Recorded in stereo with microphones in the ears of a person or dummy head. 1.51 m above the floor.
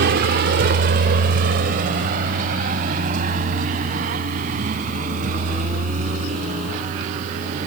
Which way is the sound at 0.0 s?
55° right (ahead or behind).